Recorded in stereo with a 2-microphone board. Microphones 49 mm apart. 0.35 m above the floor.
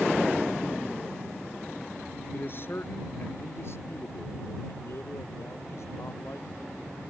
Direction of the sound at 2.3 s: 45° left (ahead or behind).